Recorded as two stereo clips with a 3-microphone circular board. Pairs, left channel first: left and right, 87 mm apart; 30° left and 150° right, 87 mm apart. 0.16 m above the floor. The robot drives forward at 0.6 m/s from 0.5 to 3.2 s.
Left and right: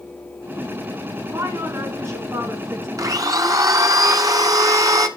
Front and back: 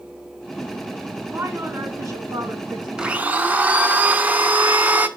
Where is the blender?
75° right, 0.7 m; by 5.1 s 90° right, 0.7 m.